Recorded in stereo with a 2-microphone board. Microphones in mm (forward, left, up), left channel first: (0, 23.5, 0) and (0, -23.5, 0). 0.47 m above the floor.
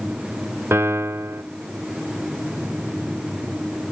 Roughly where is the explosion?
No explosion in this recording.